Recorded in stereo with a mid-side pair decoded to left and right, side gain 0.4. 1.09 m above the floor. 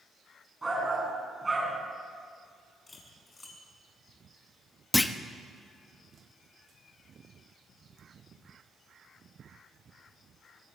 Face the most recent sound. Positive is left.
turn(degrees=15)